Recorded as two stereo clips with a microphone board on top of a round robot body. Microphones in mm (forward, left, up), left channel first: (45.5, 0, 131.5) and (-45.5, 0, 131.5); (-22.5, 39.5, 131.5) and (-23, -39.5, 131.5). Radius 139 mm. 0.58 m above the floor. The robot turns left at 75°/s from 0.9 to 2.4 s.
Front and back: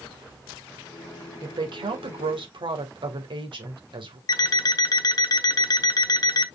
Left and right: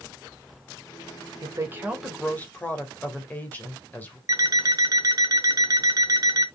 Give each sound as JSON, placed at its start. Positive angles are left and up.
{"t": 1.4, "sound": "a woman speaking", "azimuth_deg": -130, "distance_m": 3.5}
{"t": 4.3, "sound": "an alarm clock", "azimuth_deg": -45, "distance_m": 1.1}